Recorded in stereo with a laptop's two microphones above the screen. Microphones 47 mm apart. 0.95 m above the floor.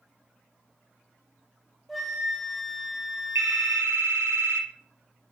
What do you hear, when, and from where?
1.9 s a flute: centre (ahead or behind), 1.3 m
3.4 s a phone ringing: 80° right, 1.1 m